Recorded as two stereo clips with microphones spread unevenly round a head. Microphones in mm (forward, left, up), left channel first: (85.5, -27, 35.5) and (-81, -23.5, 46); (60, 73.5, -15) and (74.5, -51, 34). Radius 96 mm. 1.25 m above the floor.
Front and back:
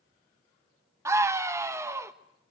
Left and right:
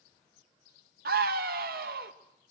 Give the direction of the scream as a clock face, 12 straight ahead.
4 o'clock.